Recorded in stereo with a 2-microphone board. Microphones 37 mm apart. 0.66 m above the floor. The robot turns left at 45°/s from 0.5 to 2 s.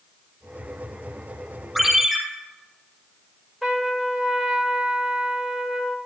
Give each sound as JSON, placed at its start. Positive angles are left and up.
{"t": 1.8, "sound": "a ringtone", "side_deg": 5, "distance_m": 5.0}
{"t": 3.6, "sound": "a trumpet", "side_deg": 10, "distance_m": 2.5}